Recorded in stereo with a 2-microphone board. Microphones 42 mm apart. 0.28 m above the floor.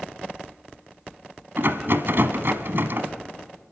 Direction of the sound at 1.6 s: 65° right (ahead or behind).